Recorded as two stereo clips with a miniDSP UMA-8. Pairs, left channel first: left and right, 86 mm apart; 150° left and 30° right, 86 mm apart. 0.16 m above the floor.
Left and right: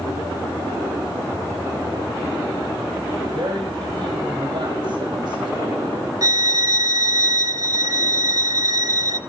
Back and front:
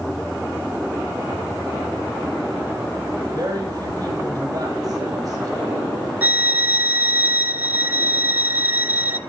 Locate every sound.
3.3 s a woman speaking: 70° right, 5 m
6.2 s a violin: 90° right, 0.6 m